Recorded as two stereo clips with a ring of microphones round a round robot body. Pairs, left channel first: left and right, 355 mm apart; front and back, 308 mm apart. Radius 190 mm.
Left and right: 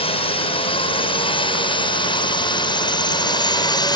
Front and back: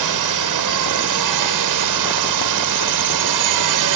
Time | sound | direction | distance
0.0 | a drone | 165° left | ?